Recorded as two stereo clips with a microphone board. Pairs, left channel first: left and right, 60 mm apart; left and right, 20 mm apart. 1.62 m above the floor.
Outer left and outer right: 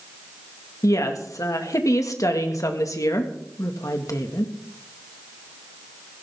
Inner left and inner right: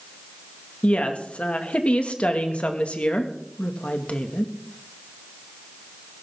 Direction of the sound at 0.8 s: 65° left (ahead or behind).